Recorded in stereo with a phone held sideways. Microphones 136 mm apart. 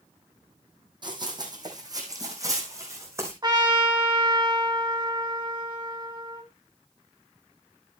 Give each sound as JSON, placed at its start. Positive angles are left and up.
{"t": 1.0, "sound": "running footsteps", "side_deg": -35, "distance_m": 3.0}
{"t": 3.4, "sound": "a trumpet", "side_deg": -30, "distance_m": 2.5}